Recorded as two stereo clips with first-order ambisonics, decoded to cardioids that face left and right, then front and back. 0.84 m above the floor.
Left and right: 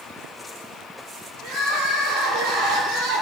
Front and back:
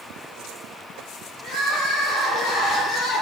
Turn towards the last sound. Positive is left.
turn(degrees=-55)